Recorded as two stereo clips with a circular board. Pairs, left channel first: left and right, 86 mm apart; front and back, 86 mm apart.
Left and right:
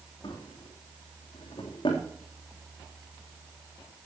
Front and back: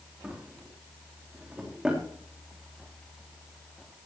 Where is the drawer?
100° left, 3.5 m.